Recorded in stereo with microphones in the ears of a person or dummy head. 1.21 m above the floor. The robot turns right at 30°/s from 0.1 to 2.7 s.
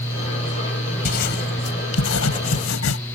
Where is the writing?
50° left (ahead or behind); by 3.0 s 80° left.